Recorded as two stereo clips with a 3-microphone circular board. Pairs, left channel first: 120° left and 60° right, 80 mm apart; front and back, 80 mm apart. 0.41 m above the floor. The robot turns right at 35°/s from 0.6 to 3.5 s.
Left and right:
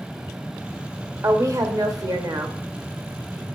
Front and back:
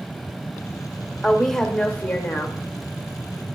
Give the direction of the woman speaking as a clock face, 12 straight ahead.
3 o'clock.